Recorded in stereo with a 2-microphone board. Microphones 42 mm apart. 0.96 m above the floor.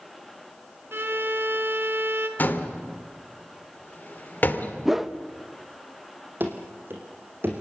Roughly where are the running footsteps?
Right.